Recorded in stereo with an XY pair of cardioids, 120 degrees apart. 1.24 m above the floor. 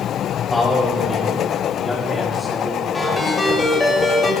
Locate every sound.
0.5 s a man speaking: straight ahead, 5.5 m; by 3.8 s 10° right, 7 m
2.9 s a ringtone: 10° left, 3 m